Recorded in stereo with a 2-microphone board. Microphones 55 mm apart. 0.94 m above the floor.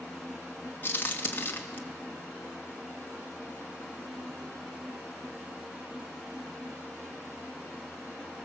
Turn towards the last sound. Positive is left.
turn(degrees=40)  # may be behind; listen again after turning